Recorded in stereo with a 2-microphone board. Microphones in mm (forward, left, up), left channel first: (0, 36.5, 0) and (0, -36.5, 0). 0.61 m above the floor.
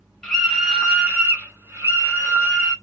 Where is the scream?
10° left (ahead or behind), 0.9 m; by 2.7 s 50° right (ahead or behind), 1.4 m.